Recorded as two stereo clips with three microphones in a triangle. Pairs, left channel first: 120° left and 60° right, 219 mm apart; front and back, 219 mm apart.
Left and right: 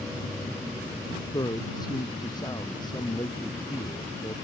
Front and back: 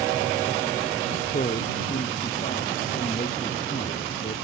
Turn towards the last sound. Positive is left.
turn(degrees=50)